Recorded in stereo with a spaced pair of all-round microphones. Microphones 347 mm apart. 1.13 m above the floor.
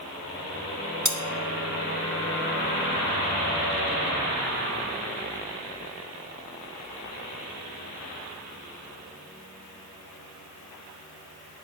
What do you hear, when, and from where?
1.1 s cutlery clinking: 55° right (ahead or behind), 1.2 m